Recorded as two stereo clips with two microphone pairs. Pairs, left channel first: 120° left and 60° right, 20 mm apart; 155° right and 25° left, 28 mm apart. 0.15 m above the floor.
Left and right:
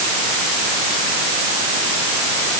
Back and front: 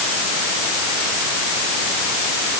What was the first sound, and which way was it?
Only background noise.